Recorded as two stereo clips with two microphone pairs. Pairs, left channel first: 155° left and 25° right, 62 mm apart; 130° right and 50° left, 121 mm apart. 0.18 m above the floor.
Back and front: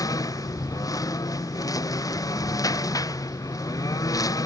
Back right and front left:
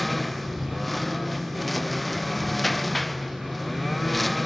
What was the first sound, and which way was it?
A lawn mower, 140° left.